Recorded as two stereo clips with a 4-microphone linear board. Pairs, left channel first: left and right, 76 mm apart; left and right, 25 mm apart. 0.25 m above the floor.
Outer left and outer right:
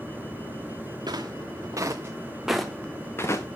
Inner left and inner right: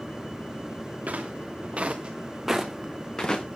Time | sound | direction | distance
1.1 | footsteps | 65° right (ahead or behind) | 2.5 m